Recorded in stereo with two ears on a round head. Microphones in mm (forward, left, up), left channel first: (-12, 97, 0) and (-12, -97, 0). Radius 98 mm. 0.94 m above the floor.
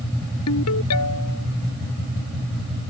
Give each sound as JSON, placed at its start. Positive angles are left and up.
{"t": 0.5, "sound": "a ringtone", "side_deg": 90}